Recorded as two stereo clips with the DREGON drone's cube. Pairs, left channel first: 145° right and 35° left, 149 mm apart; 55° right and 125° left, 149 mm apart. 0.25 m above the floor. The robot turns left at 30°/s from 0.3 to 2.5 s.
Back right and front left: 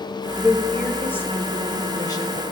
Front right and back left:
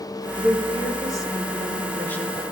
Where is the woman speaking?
60° right, 1.4 m; by 2.4 s 125° right, 1.4 m.